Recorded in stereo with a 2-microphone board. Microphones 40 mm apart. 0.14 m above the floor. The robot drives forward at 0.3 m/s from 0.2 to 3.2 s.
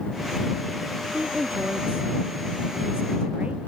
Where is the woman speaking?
35° right (ahead or behind); by 3.6 s 30° right (ahead or behind).